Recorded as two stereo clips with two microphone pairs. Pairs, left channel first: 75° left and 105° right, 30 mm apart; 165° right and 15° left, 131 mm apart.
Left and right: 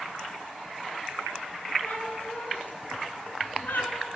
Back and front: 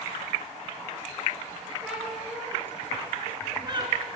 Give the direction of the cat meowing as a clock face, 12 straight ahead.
9 o'clock.